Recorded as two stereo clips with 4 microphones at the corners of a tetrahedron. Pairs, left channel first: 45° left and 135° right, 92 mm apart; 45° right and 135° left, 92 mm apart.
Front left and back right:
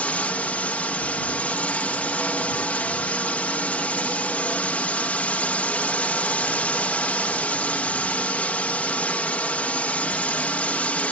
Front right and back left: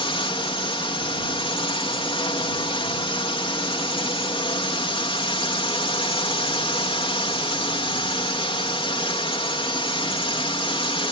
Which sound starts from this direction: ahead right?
A drone, at 0.0 s.